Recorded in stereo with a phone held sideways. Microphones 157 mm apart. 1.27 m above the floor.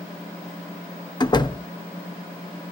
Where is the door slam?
25° left (ahead or behind), 0.5 m.